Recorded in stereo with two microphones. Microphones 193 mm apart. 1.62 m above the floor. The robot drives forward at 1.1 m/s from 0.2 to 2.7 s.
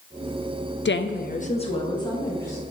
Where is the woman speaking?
75° left (ahead or behind), 0.5 m; by 2.6 s 15° left (ahead or behind), 1.9 m.